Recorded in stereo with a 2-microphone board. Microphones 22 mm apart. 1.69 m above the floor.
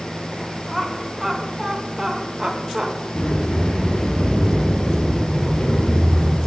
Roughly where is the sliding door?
Left.